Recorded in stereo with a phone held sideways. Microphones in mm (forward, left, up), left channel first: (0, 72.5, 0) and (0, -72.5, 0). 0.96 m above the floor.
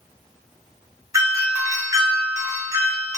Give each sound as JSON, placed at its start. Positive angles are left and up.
{"t": 1.1, "sound": "a doorbell", "side_deg": -20, "distance_m": 0.6}